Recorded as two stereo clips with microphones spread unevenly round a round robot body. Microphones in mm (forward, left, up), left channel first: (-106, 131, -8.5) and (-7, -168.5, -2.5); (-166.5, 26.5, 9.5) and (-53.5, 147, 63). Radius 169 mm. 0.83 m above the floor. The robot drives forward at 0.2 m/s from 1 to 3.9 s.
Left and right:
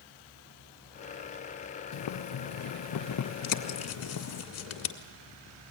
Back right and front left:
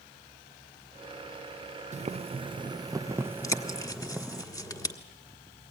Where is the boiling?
110° left, 0.6 m; by 4.4 s 140° left, 0.8 m.